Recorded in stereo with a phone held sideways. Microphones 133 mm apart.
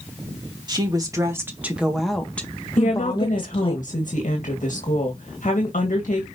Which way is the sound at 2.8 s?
75° left (ahead or behind).